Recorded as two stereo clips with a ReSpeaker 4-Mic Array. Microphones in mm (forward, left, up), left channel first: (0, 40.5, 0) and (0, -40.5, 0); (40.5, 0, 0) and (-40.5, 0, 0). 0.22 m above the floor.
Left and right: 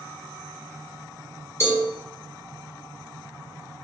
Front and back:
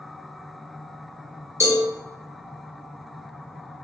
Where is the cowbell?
135° left, 1.2 m.